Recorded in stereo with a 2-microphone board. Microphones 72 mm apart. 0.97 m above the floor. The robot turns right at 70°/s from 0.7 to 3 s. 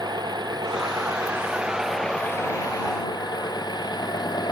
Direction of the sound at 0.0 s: 85° right.